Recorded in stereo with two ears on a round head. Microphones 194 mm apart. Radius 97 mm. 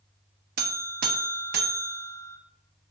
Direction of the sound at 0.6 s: 45° right (ahead or behind).